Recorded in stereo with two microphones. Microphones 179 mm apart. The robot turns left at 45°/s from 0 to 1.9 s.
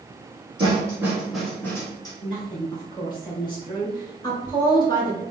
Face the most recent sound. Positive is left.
turn(degrees=25)  # may be behind; listen again after turning